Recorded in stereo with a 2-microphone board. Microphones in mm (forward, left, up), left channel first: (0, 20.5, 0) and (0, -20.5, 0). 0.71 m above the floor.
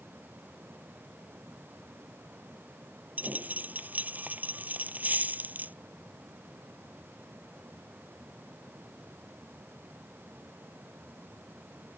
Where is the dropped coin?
40° right (ahead or behind).